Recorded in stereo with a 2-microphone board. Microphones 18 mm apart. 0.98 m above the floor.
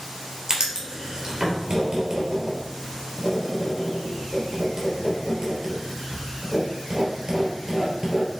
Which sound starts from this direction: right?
Writing, at 0.5 s.